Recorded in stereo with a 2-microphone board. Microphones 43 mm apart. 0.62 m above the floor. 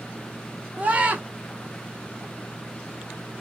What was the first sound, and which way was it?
A scream, 30° right (ahead or behind).